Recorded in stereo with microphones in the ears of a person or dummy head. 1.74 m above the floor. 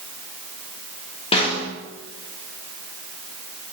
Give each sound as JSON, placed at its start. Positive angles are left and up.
{"t": 1.3, "sound": "a snare drum", "side_deg": 30, "distance_m": 3.0}